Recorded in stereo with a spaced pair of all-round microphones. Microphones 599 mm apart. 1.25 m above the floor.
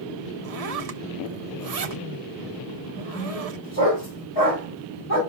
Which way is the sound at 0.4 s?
80° right.